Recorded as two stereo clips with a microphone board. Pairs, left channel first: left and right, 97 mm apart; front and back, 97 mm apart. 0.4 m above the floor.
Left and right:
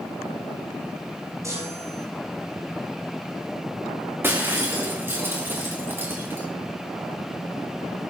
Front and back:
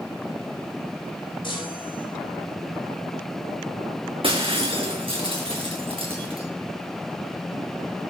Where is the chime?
30° right, 8.5 m.